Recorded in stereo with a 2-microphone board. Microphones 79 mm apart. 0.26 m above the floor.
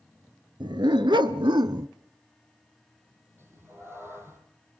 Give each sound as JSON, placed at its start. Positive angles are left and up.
{"t": 0.6, "sound": "a dog barking", "side_deg": -75, "distance_m": 1.3}
{"t": 3.4, "sound": "a cat meowing", "side_deg": -30, "distance_m": 3.5}